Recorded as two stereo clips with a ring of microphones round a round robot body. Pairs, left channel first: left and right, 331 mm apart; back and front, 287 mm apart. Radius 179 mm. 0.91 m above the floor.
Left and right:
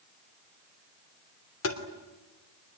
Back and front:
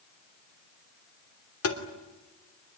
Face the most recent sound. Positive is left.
turn(degrees=140)